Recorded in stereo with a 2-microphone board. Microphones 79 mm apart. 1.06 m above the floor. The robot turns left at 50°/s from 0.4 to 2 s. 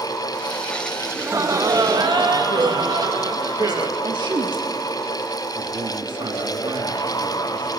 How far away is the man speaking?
About 2.0 m.